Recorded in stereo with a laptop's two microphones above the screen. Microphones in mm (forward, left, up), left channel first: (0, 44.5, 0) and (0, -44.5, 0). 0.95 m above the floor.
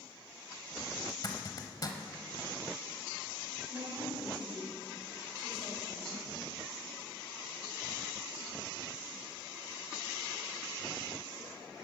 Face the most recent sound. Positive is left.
turn(degrees=-65)  # may be behind; listen again after turning